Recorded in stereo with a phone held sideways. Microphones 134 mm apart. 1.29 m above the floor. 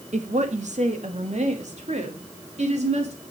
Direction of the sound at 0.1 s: 65° right (ahead or behind).